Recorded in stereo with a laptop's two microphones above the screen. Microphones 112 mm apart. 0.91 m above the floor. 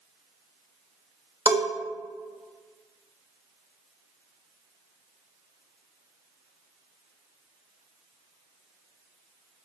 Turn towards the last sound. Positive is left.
turn(degrees=-35)  # may be behind; listen again after turning